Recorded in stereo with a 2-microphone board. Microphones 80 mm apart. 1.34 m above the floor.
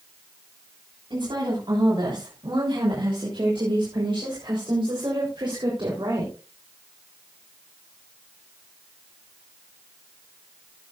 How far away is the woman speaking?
About 7.5 m.